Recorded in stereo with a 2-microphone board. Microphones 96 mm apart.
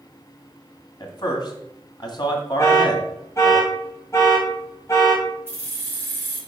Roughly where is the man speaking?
Left.